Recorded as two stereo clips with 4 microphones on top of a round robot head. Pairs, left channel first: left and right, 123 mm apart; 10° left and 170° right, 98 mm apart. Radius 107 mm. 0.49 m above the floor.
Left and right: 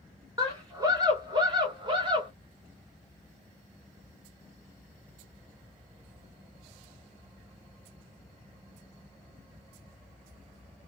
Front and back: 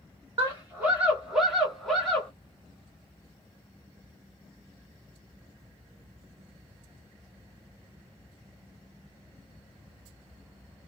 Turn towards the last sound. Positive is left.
turn(degrees=-65)